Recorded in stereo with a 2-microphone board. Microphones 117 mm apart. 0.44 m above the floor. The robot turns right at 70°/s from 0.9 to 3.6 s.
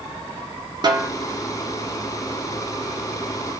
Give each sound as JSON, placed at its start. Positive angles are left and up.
{"t": 0.8, "sound": "a snare drum", "side_deg": -40, "distance_m": 1.1}